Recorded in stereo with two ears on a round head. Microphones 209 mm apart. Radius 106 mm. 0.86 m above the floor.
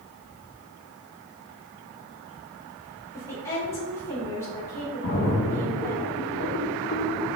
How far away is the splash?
About 2.0 m.